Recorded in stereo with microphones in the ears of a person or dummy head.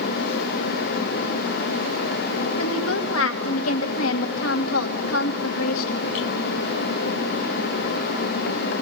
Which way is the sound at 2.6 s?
85° left.